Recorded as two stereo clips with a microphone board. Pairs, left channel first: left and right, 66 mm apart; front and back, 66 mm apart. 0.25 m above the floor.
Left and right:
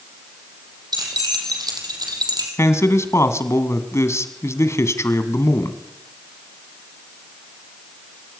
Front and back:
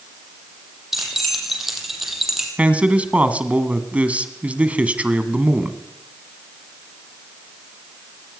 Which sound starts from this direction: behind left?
A man speaking, at 2.6 s.